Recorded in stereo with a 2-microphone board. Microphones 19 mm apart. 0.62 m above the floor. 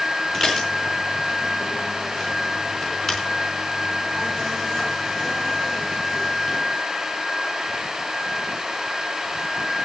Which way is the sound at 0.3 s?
35° left (ahead or behind).